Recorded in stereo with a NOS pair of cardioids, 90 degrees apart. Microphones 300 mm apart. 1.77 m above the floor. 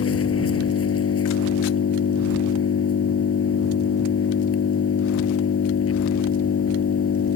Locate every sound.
0.0 s an engine running: 50° left